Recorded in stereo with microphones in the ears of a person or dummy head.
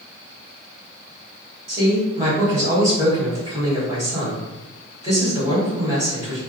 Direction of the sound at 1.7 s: 20° right (ahead or behind).